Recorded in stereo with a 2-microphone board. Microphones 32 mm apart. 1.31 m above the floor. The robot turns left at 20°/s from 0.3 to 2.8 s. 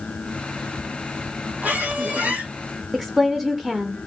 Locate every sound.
1.6 s a squeak: 60° right (ahead or behind), 3 m; by 2.5 s 65° right (ahead or behind), 3 m
2.9 s a woman speaking: 20° right (ahead or behind), 0.5 m